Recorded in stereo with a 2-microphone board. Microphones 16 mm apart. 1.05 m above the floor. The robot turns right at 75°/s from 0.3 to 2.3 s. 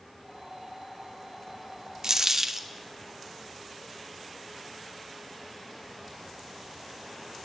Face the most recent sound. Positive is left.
turn(degrees=-30)  # may be behind; listen again after turning